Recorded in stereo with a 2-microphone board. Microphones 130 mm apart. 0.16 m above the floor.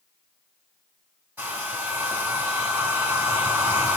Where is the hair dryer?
15° right (ahead or behind), 4.5 m.